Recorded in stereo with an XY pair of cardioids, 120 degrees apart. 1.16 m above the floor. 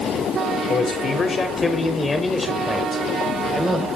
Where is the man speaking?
40° left, 4 m; by 3.9 s 10° right, 4 m.